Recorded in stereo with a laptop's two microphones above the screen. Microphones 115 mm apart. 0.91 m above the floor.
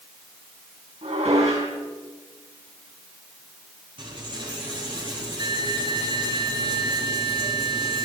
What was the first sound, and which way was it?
Dishes clattering, 65° right (ahead or behind).